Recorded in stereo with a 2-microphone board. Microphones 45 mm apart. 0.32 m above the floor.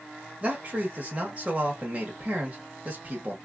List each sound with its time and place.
0.4 s a man speaking: 25° right (ahead or behind), 1.1 m